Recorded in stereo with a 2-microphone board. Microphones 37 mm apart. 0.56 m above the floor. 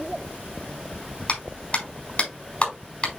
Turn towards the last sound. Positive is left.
turn(degrees=35)  # may be behind; listen again after turning